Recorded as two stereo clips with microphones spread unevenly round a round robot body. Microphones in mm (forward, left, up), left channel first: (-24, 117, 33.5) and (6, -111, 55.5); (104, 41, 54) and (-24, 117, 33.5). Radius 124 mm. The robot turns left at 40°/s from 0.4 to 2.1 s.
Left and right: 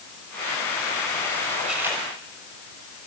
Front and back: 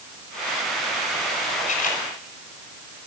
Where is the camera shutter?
5° left, 6 m; by 2.0 s 10° right, 6 m.